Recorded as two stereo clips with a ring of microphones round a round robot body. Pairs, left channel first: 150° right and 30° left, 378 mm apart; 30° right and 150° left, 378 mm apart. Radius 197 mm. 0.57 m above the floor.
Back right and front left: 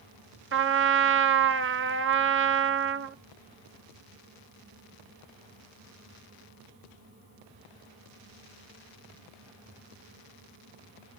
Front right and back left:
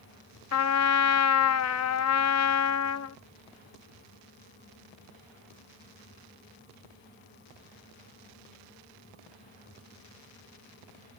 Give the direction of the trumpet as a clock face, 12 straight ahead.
12 o'clock.